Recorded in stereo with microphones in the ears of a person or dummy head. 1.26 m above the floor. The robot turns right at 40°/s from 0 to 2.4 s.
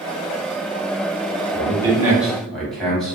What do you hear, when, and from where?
1.5 s a man speaking: 35° right (ahead or behind), 1.1 m; by 3.1 s centre (ahead or behind), 1.1 m